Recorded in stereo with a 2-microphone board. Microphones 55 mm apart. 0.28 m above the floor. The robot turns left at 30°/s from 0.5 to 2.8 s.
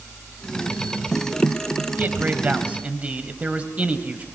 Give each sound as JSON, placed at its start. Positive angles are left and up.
{"t": 2.0, "sound": "a man speaking", "side_deg": -35, "distance_m": 1.4}